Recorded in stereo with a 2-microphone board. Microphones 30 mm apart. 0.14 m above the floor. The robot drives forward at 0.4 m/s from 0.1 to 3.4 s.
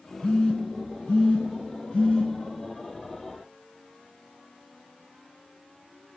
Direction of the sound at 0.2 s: 35° left (ahead or behind).